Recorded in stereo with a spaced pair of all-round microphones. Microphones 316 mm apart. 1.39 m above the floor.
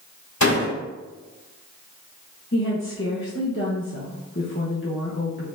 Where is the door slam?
70° left (ahead or behind), 2 m.